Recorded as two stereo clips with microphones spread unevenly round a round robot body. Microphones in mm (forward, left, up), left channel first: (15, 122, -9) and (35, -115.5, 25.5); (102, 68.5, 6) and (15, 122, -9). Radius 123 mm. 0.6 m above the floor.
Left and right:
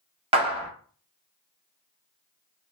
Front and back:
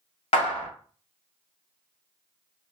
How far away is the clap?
About 0.7 m.